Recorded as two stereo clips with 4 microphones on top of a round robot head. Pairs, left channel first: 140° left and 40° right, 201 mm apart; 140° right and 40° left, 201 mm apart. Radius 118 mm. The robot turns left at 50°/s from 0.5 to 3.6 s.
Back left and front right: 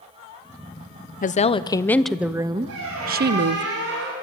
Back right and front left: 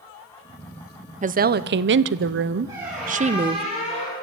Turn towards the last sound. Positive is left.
turn(degrees=-75)